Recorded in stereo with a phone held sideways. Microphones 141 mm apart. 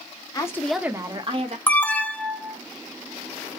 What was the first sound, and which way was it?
A woman speaking, 25° left (ahead or behind).